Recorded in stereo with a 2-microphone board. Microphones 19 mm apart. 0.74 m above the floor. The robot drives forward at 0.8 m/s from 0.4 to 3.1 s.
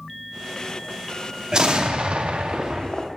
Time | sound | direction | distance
1.5 | an explosion | 40° right (ahead or behind) | 0.8 m